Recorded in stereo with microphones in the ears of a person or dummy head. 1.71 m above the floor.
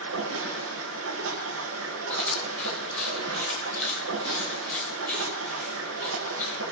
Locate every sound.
0.0 s running water: 75° right (ahead or behind), 8.5 m
2.1 s chewing: 5° left (ahead or behind), 9.5 m